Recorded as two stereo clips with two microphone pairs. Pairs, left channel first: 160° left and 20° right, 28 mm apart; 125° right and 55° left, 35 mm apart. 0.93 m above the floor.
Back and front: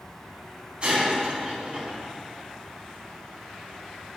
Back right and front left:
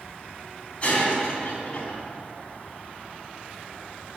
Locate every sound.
0.8 s breaking glass: 70° right, 4 m